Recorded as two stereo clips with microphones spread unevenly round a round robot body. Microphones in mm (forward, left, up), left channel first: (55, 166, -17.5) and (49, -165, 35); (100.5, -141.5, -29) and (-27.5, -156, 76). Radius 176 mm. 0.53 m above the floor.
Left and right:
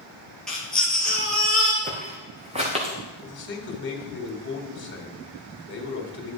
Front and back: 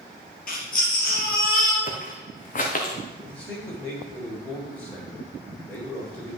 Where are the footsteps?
25° right, 2.0 m; by 2.9 s 20° right, 3.5 m.